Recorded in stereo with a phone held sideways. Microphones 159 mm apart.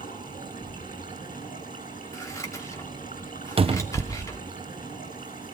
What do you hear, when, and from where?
0.0 s running water: 60° left (ahead or behind), 9 m
2.1 s scissors: 20° left (ahead or behind), 2.5 m
3.6 s a cupboard door: 35° right (ahead or behind), 0.6 m